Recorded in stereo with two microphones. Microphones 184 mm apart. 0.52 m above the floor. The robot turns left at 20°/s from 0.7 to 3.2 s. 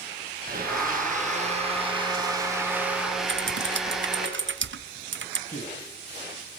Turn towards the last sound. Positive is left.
turn(degrees=40)  # may be behind; listen again after turning